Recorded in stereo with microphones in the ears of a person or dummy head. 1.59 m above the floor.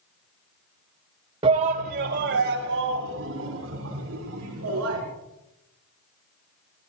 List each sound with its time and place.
1.4 s a shout: 30° right (ahead or behind), 1.5 m; by 5.0 s 85° right, 6 m